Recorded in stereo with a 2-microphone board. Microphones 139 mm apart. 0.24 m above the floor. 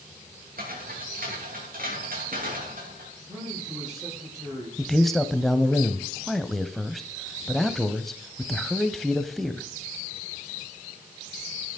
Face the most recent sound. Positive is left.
turn(degrees=0)  # may be behind; listen again after turning